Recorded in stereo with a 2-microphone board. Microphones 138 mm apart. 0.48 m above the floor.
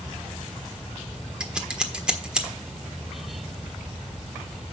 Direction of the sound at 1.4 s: 5° right (ahead or behind).